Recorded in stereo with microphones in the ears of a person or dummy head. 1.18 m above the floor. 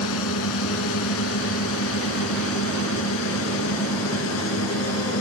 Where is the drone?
85° left.